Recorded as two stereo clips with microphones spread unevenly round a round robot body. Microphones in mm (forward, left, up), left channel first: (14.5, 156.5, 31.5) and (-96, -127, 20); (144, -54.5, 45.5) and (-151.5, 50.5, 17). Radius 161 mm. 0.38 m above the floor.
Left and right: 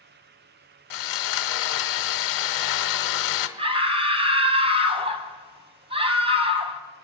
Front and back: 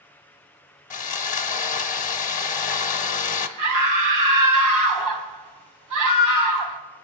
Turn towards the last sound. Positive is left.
turn(degrees=180)